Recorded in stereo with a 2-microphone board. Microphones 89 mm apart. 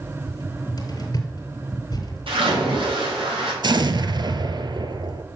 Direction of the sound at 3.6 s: 55° right (ahead or behind).